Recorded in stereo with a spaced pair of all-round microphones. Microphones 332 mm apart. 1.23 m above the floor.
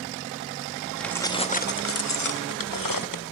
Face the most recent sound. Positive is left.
turn(degrees=75)  # may be behind; listen again after turning